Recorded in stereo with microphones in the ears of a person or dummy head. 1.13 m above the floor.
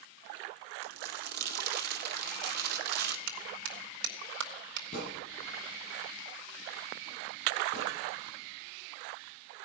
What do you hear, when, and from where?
0.8 s crumpling: 60° right (ahead or behind), 2.5 m
3.3 s a clap: 70° right (ahead or behind), 2.5 m
4.9 s a thud: 50° left (ahead or behind), 8 m